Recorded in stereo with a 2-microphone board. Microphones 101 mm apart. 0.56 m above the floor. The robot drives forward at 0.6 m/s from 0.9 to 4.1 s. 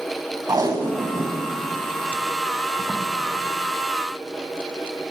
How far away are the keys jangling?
I don't hear keys jangling.